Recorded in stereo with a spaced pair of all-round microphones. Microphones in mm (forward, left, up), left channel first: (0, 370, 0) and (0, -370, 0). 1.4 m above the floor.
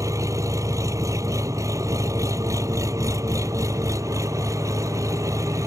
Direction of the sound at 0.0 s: 5° right (ahead or behind).